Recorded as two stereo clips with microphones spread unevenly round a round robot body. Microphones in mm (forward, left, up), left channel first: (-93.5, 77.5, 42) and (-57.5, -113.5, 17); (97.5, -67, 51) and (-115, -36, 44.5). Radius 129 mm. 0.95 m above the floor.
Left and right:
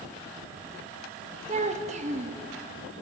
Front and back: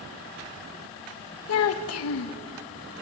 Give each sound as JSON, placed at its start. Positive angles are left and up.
{"t": 1.5, "sound": "a child speaking", "azimuth_deg": -20, "distance_m": 0.6}